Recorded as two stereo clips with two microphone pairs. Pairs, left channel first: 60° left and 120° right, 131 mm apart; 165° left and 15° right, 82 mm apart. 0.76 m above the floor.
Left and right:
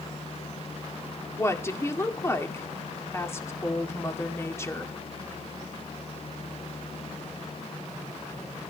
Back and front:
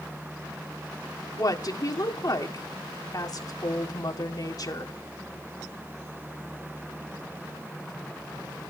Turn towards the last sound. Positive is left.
turn(degrees=125)